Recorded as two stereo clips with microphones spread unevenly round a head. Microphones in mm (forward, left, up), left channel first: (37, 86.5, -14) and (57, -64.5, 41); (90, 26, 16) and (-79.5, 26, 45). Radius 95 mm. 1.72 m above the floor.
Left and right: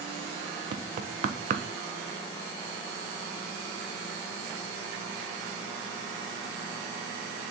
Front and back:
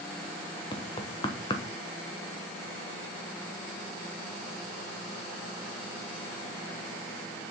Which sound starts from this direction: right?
Knocking, at 0.7 s.